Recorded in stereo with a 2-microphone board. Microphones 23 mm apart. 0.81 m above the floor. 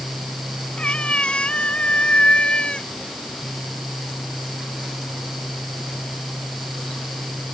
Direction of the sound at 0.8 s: 65° left (ahead or behind).